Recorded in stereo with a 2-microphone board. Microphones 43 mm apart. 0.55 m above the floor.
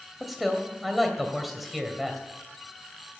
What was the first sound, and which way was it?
A man speaking, 5° right (ahead or behind).